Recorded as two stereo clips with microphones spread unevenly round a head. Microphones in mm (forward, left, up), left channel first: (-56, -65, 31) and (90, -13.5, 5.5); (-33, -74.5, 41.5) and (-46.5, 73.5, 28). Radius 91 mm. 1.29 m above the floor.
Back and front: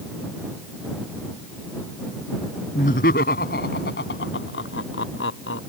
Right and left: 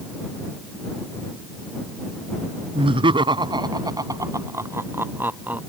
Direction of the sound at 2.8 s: 150° left.